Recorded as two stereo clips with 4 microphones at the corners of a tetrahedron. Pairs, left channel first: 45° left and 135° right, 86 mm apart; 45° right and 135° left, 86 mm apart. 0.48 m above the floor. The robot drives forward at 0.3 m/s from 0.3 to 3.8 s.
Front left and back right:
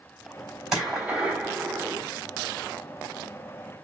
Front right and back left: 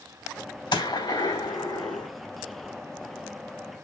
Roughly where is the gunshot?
Ahead right.